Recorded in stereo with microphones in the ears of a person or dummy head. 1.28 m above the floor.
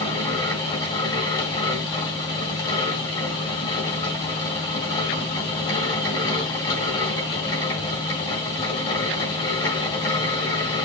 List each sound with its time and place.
0.0 s a fan: 25° left (ahead or behind), 1.7 m